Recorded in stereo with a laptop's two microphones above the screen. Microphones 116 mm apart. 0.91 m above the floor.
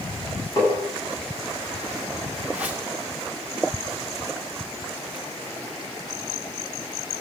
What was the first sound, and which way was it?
Tapping, 35° left (ahead or behind).